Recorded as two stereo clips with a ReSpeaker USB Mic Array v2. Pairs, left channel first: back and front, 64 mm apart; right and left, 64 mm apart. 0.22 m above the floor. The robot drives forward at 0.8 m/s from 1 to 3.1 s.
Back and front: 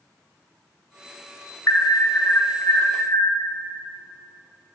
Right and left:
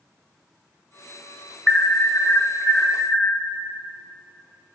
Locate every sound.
1.7 s an alarm: 155° right, 0.9 m; by 3.4 s 170° right, 1.8 m